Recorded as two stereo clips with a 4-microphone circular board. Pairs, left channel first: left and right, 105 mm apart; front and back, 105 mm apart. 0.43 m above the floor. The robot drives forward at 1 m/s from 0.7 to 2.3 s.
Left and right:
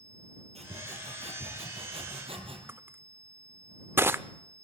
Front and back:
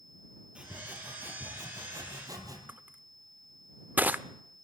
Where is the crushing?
125° right, 0.7 m.